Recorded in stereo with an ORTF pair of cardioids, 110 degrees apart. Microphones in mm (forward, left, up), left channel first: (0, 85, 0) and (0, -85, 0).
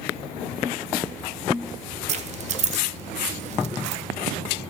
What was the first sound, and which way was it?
Keys jangling, 45° right.